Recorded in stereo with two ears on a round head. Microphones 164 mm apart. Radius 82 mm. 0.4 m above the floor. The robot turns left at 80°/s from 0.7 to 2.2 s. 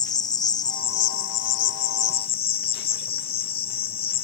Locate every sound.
0.0 s an insect: 155° left; by 4.2 s 35° left